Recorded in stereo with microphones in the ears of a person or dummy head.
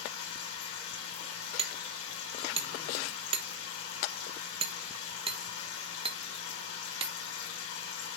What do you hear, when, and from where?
0.0 s a machine running: 85° left, 5.5 m
1.6 s hammering: 25° right (ahead or behind), 1.1 m